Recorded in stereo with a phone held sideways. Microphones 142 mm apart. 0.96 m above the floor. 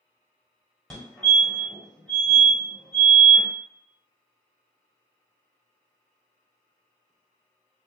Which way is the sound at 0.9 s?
5° left (ahead or behind).